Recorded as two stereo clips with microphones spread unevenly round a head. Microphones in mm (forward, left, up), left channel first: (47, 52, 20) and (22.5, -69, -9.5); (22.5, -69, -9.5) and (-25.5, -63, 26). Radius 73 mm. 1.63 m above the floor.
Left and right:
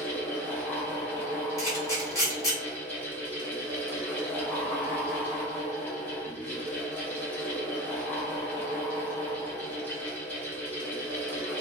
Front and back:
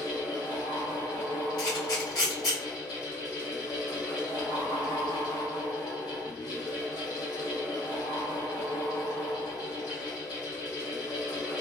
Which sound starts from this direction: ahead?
A fan, at 0.0 s.